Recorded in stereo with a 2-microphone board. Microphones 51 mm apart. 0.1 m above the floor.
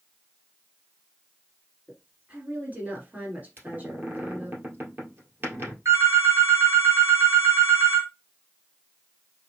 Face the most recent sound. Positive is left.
turn(degrees=-60)  # may be behind; listen again after turning